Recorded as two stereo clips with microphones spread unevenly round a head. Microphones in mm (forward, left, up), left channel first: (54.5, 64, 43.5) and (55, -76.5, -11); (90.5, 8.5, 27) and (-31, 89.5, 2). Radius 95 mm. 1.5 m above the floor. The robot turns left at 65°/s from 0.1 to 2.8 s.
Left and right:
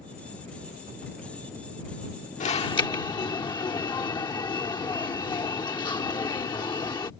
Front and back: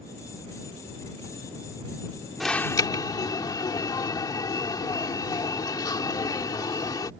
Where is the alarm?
55° left; by 7.1 s 30° left.